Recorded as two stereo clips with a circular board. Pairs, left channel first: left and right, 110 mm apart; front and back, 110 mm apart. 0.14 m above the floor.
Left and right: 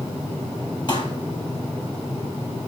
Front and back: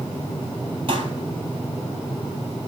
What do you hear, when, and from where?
0.9 s a pop: 140° left, 2.5 m